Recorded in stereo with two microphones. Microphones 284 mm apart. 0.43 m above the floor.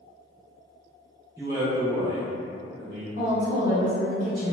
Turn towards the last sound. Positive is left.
turn(degrees=-30)  # may be behind; listen again after turning